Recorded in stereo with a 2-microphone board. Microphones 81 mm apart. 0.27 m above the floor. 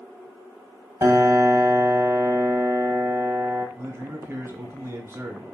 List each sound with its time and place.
1.0 s a piano: 40° right (ahead or behind), 0.8 m
3.8 s a man speaking: 35° right (ahead or behind), 1.0 m